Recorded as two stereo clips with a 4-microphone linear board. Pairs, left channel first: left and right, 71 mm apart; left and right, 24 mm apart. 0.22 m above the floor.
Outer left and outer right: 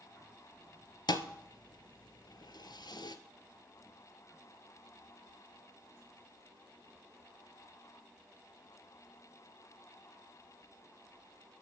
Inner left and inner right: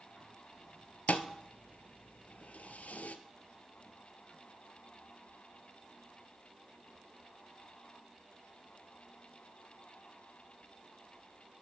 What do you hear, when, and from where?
1.1 s a thud: 80° left, 0.6 m